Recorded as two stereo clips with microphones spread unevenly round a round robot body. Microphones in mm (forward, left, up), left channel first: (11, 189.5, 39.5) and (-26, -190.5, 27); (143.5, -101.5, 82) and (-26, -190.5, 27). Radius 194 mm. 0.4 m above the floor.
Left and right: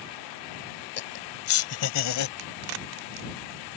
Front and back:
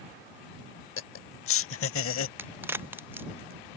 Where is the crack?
80° right.